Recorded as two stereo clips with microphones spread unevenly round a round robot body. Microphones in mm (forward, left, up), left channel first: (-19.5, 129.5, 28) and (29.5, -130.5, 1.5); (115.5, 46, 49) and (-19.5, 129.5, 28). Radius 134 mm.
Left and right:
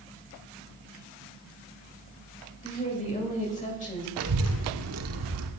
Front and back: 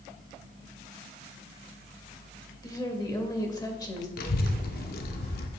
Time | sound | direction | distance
2.6 | a woman speaking | 35° left | 2.5 m
4.2 | a child speaking | 60° right | 1.1 m